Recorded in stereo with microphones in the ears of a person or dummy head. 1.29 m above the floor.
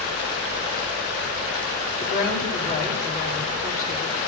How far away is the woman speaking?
About 2 m.